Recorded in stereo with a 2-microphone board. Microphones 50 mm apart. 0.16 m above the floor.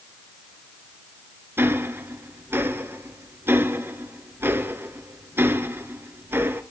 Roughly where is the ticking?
Right.